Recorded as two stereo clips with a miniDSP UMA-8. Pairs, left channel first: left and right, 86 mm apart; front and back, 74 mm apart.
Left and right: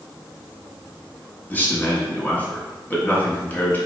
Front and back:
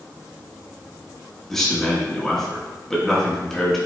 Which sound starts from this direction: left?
A man speaking, at 1.5 s.